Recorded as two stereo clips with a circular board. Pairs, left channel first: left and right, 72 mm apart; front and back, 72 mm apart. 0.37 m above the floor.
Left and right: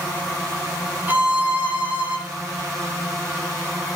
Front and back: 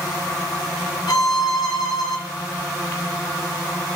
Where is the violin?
25° right, 1.7 m.